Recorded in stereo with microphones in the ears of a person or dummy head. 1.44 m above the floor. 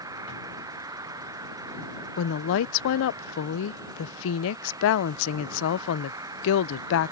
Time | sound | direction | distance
0.0 | an insect | 15° right (ahead or behind) | ?
2.2 | a woman speaking | 65° left (ahead or behind) | ?